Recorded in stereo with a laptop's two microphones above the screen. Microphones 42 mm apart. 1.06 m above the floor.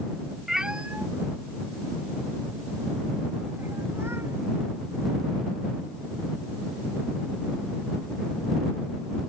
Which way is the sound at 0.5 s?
5° right (ahead or behind).